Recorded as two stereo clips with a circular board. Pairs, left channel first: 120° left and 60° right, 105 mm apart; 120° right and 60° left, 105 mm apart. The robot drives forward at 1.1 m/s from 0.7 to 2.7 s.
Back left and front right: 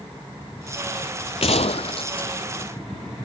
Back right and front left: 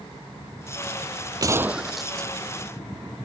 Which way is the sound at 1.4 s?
110° left.